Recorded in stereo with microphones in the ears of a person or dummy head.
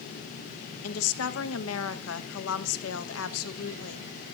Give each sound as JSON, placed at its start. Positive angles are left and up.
{"t": 0.8, "sound": "a woman speaking", "side_deg": 80, "distance_m": 1.0}